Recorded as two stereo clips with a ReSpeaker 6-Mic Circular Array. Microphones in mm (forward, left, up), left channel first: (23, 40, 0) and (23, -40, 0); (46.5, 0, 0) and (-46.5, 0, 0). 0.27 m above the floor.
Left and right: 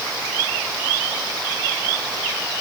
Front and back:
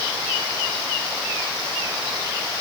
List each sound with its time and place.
Only background noise.